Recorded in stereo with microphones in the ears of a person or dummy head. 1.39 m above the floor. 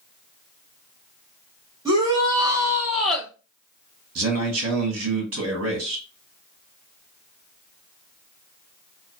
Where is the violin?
I don't hear a violin.